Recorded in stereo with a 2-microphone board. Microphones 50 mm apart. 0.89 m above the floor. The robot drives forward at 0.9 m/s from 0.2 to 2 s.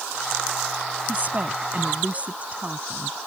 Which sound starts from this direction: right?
A woman speaking, at 1.1 s.